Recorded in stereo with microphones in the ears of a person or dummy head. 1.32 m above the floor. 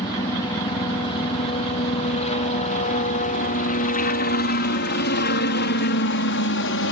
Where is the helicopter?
20° left (ahead or behind); by 6.9 s 60° left (ahead or behind).